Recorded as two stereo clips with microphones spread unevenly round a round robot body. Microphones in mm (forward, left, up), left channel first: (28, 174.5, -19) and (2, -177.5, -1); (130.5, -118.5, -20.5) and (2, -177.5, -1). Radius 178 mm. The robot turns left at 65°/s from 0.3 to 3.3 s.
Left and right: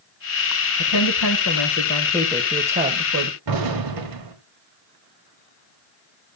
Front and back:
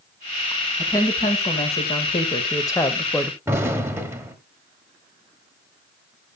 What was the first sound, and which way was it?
A woman speaking, 100° left.